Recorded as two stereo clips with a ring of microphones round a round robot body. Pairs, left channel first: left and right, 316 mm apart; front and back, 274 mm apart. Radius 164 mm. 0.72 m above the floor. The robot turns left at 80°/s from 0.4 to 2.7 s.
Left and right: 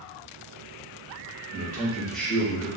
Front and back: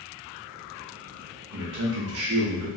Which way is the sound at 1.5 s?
130° right.